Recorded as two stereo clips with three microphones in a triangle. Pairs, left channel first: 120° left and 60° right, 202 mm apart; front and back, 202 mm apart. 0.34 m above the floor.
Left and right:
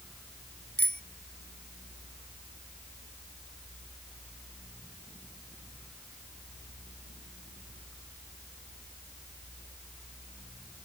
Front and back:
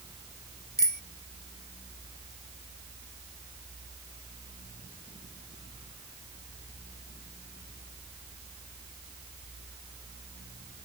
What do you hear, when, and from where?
0.8 s a bicycle bell: 145° left